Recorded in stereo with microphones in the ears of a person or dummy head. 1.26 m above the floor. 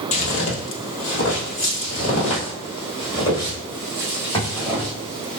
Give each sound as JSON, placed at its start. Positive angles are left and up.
{"t": 0.1, "sound": "footsteps", "side_deg": 35, "distance_m": 1.6}